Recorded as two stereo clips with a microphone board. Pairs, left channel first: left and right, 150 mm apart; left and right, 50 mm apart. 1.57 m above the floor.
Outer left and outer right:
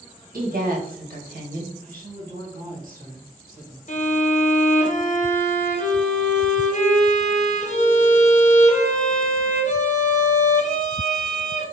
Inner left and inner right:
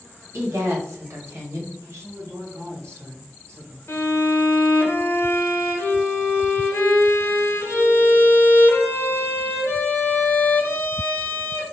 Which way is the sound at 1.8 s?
70° right (ahead or behind).